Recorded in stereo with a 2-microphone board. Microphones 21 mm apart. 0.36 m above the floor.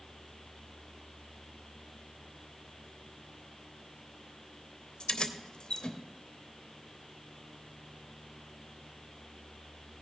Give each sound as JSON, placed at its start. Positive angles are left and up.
{"t": 5.0, "sound": "keys jangling", "side_deg": 45, "distance_m": 0.8}